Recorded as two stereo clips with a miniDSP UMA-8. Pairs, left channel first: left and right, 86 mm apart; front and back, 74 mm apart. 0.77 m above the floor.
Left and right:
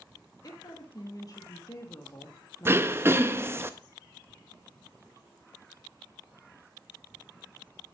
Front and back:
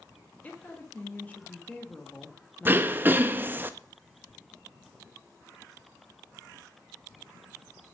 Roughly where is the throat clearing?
Behind right.